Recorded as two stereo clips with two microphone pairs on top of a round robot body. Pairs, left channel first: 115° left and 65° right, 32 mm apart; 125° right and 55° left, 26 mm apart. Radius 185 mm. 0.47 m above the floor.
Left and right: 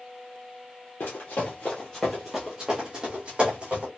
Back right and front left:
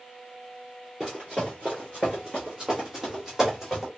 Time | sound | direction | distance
1.0 | running footsteps | 115° left | 0.7 m